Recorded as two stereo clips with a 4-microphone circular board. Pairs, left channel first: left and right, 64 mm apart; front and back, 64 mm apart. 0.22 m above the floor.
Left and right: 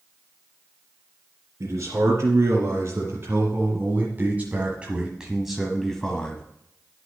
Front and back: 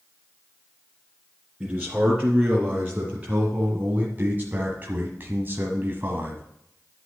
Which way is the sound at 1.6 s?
110° right.